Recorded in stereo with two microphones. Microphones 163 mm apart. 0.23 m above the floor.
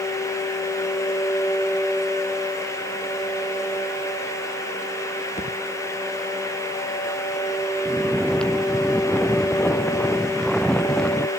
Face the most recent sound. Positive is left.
turn(degrees=5)  # may be behind; listen again after turning